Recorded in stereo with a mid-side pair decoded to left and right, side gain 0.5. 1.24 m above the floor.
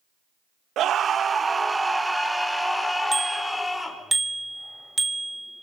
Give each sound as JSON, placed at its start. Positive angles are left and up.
{"t": 0.8, "sound": "a scream", "azimuth_deg": -60, "distance_m": 1.3}
{"t": 3.1, "sound": "a bicycle bell", "azimuth_deg": -15, "distance_m": 2.5}